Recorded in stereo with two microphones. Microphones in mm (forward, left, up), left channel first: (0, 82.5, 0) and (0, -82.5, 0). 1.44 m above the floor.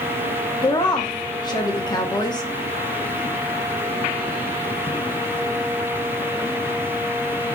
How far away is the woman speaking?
About 1.0 m.